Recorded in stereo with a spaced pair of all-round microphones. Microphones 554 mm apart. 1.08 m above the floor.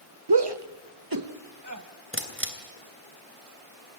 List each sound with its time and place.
0.3 s a shout: 45° right (ahead or behind), 0.9 m; by 1.8 s 30° right (ahead or behind), 2 m
2.1 s a camera shutter: 20° right (ahead or behind), 3 m